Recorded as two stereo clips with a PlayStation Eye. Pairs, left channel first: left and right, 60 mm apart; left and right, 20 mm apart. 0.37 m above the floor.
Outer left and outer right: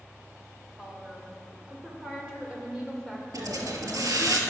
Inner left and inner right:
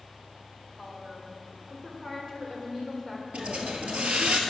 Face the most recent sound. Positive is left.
turn(degrees=-80)